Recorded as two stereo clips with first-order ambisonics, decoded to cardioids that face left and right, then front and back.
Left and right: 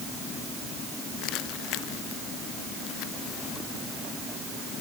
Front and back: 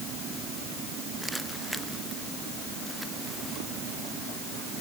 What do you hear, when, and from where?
Only background noise.